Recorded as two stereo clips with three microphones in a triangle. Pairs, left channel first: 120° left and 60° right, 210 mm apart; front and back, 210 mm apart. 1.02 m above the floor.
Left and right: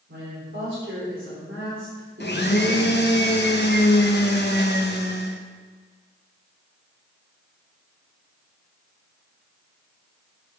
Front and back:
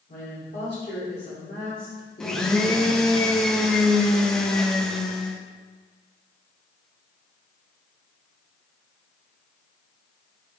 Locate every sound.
0.1 s a woman speaking: 35° right, 3.5 m; by 3.2 s 60° right, 2 m
2.2 s a blender: 85° left, 0.9 m